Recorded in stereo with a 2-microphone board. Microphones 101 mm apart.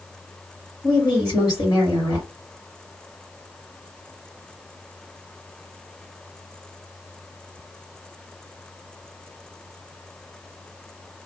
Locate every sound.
0.8 s a woman speaking: 45° left (ahead or behind), 2.5 m